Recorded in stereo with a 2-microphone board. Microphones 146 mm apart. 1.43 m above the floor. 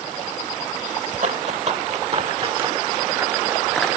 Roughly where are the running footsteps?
Right.